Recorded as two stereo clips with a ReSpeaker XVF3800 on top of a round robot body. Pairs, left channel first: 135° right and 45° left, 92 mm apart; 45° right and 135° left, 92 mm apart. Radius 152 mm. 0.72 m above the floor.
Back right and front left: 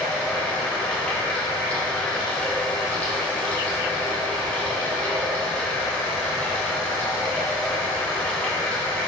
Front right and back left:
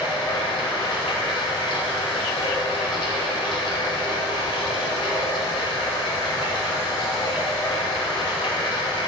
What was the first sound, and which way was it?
Running water, 60° right.